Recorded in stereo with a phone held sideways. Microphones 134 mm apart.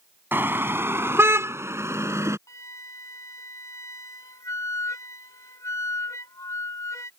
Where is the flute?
25° left (ahead or behind).